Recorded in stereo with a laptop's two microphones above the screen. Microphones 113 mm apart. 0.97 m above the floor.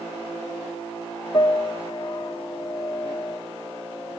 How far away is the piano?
About 0.9 m.